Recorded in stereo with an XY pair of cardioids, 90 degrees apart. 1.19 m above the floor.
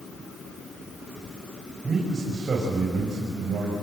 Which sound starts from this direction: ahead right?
A man speaking, at 1.8 s.